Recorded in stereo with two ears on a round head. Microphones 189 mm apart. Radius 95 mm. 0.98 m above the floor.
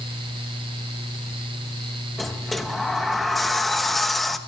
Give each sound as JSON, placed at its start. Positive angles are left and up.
{"t": 2.2, "sound": "a sliding door", "side_deg": 0, "distance_m": 0.9}